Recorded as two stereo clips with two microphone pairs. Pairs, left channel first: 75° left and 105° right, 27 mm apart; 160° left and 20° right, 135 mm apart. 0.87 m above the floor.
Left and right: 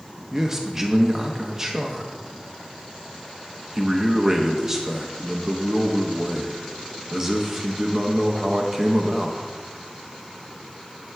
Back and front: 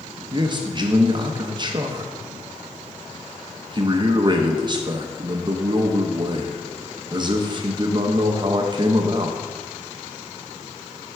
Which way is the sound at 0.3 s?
40° right.